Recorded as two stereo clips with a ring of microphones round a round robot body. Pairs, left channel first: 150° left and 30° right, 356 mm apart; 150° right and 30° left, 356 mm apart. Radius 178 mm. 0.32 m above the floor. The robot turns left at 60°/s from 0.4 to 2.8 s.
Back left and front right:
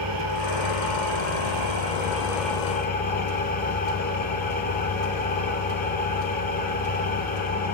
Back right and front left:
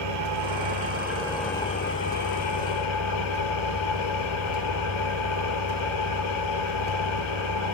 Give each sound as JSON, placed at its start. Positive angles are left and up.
{"t": 0.0, "sound": "an engine running", "azimuth_deg": 0, "distance_m": 5.0}